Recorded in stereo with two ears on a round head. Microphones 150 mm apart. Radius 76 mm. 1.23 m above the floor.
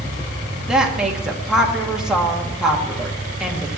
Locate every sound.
0.7 s a woman speaking: 5° right (ahead or behind), 1.7 m